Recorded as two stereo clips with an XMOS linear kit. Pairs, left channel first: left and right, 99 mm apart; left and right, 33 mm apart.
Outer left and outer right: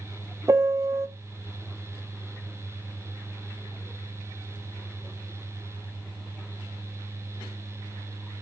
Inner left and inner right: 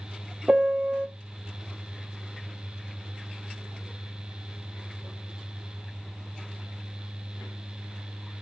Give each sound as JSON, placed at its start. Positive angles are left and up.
{"t": 0.5, "sound": "a piano", "side_deg": -30, "distance_m": 0.6}